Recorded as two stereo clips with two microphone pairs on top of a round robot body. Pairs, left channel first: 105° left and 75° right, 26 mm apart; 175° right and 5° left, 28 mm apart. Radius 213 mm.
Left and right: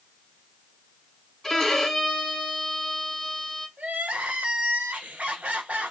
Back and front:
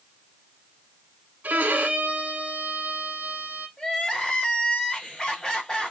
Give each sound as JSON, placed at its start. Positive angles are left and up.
{"t": 1.4, "sound": "a violin", "azimuth_deg": 30, "distance_m": 0.6}
{"t": 3.8, "sound": "crying", "azimuth_deg": -115, "distance_m": 1.9}